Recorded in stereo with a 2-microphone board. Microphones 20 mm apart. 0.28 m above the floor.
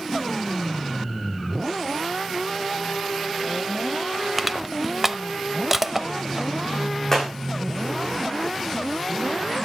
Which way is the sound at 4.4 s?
10° right (ahead or behind).